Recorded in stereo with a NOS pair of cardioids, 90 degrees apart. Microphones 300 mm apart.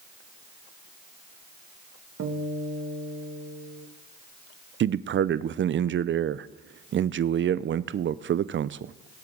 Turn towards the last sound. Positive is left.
turn(degrees=-40)